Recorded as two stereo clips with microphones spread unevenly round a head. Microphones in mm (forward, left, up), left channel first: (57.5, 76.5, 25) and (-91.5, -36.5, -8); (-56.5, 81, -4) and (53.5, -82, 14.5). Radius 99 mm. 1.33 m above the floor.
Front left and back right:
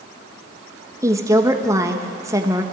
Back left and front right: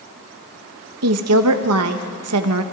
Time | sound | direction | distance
1.0 | a woman speaking | 65° right | 1.3 m